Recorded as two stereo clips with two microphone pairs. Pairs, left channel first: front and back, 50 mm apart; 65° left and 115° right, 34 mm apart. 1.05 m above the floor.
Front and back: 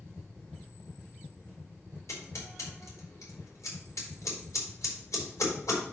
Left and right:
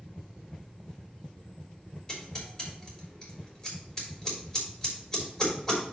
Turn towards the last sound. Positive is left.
turn(degrees=-10)